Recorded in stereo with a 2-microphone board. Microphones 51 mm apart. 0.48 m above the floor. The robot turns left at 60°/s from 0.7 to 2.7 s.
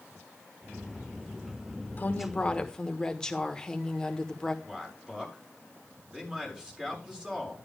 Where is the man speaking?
15° right (ahead or behind), 6.5 m.